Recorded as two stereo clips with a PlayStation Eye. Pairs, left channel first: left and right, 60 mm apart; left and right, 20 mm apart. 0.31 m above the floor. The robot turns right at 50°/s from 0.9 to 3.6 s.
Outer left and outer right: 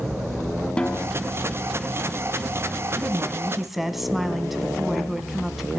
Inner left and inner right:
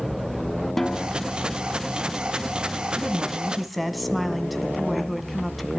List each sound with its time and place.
0.8 s a snare drum: 15° left (ahead or behind), 1.0 m; by 1.1 s 5° left (ahead or behind), 1.0 m
3.0 s a woman speaking: 35° right, 2 m; by 5.8 s straight ahead, 2 m